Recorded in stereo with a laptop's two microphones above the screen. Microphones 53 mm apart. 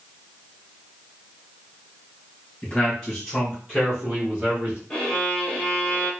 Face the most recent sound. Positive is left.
turn(degrees=15)  # may be behind; listen again after turning